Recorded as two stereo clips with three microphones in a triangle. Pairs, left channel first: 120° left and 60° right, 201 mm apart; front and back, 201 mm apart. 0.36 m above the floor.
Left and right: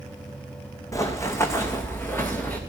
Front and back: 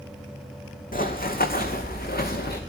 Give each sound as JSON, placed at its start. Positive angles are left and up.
{"t": 0.9, "sound": "running footsteps", "azimuth_deg": 45, "distance_m": 1.6}